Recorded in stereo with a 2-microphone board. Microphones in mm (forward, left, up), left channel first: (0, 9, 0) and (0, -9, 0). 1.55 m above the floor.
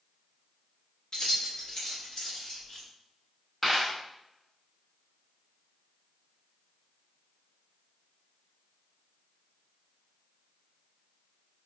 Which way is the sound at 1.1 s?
40° left (ahead or behind).